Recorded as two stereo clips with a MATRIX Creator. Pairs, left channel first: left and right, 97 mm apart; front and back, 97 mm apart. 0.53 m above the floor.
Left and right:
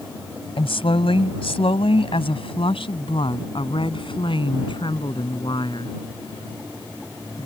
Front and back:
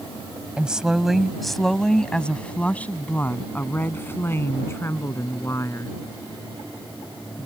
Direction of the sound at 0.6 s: 100° left.